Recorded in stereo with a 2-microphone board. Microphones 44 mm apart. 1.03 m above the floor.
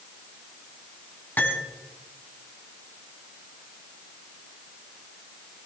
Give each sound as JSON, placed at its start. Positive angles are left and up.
{"t": 1.4, "sound": "cutlery clinking", "side_deg": 50, "distance_m": 4.0}